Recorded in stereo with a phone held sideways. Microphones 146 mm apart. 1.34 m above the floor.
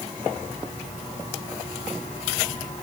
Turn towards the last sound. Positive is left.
No sound to turn to.